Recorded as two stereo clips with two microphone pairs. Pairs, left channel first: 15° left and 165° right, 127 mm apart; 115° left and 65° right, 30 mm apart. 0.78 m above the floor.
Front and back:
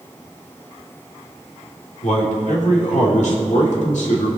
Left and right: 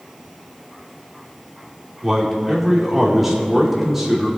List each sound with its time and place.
2.0 s a man speaking: 15° left, 2 m